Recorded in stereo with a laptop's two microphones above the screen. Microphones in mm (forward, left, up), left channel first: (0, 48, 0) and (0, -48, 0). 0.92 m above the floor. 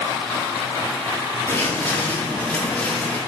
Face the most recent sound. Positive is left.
turn(degrees=5)  # may be behind; listen again after turning